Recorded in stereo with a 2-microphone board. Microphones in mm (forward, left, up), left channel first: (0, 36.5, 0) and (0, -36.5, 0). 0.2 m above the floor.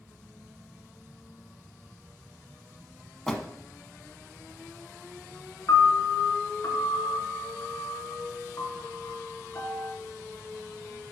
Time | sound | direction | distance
3.3 | a door slam | 10° left (ahead or behind) | 1.1 m
5.7 | a piano | 50° left (ahead or behind) | 1.5 m